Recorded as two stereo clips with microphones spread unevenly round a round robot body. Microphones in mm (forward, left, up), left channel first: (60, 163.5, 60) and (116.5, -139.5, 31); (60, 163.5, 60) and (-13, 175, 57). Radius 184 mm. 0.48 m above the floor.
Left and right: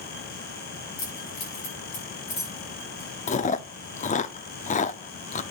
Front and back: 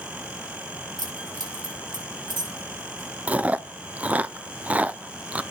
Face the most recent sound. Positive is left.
turn(degrees=145)